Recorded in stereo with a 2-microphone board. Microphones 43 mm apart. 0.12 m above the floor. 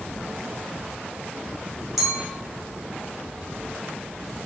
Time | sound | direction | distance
2.0 | a clink | 5° right (ahead or behind) | 1.8 m